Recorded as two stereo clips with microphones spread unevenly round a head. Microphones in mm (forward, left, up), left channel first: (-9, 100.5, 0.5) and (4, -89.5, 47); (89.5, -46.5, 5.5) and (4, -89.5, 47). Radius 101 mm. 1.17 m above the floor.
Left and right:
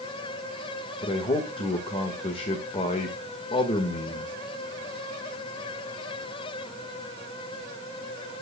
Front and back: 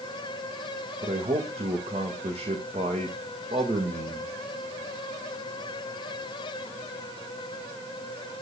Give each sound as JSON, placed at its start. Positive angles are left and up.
{"t": 1.0, "sound": "a man speaking", "azimuth_deg": 150, "distance_m": 1.6}